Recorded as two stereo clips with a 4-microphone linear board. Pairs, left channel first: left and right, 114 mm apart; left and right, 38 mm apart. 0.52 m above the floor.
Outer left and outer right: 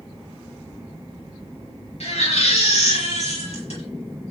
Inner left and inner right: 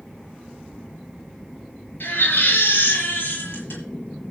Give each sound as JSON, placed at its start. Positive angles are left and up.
{"t": 2.0, "sound": "a baby crying", "side_deg": 70, "distance_m": 7.0}